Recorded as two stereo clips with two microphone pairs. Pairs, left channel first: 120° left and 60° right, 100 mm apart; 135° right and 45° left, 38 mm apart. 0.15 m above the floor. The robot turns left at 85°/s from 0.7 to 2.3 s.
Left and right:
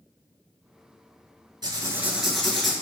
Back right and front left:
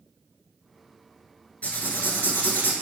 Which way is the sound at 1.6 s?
90° right.